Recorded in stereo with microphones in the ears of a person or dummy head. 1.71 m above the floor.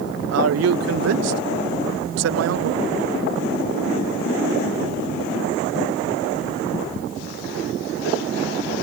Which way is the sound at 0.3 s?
90° right.